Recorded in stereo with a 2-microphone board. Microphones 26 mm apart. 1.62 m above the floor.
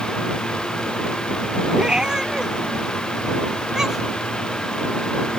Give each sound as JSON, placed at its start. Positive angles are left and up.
{"t": 1.7, "sound": "a cat meowing", "side_deg": -35}